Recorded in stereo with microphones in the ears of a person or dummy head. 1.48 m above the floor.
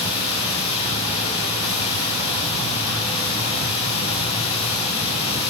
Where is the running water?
40° left (ahead or behind), 8 m.